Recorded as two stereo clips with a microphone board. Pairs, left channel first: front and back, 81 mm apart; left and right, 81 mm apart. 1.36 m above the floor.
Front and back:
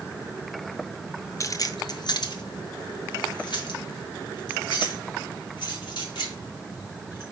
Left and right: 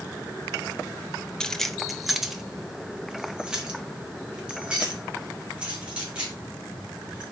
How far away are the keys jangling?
About 0.5 m.